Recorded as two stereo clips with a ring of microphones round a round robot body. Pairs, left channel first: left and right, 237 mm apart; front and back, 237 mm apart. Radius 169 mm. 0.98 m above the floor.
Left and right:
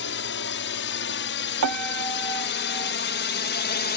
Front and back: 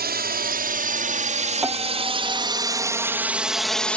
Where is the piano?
95° right.